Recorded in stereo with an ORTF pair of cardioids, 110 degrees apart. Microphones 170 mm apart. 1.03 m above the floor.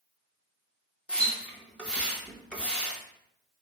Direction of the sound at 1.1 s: 5° left.